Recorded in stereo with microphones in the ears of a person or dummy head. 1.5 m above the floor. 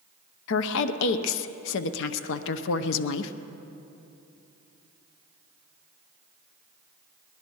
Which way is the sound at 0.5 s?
75° left (ahead or behind).